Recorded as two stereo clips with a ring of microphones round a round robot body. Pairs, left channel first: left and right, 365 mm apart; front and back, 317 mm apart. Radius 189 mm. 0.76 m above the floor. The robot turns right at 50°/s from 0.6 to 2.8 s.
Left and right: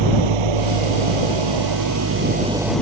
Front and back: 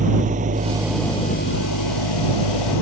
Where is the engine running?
105° right; by 2.8 s 5° left.